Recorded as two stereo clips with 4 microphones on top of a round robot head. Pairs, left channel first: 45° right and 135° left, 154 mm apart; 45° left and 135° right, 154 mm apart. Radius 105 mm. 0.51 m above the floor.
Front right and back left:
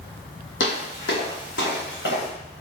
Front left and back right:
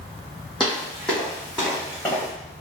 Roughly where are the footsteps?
Ahead right.